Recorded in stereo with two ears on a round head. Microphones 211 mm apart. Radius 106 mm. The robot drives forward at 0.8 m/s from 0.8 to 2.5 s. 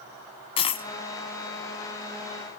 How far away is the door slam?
I don't hear a door slam.